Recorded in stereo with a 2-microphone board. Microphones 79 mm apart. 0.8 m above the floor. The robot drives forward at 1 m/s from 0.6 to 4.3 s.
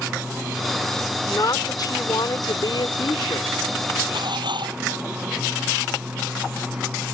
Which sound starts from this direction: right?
Dishes clattering, at 4.1 s.